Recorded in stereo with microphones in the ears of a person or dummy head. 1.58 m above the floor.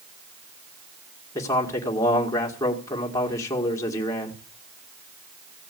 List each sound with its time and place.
1.4 s a man speaking: 15° left (ahead or behind), 2 m